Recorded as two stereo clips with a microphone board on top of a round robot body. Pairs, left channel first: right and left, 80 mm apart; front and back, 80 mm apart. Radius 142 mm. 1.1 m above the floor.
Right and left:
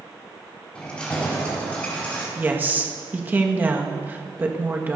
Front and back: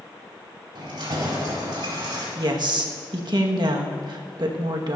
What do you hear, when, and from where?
0.8 s keys jangling: 165° right, 5.5 m; by 2.2 s 160° right, 6 m
2.4 s a woman speaking: 155° left, 1.8 m